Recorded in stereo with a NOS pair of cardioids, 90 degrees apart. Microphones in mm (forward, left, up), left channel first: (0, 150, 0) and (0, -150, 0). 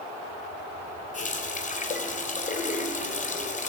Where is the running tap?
25° left, 3.5 m.